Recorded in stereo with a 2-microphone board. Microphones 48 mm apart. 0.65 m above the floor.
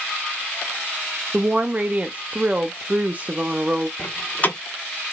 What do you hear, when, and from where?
1.3 s a woman speaking: 30° right (ahead or behind), 0.5 m
4.0 s a door slam: 35° left (ahead or behind), 1.0 m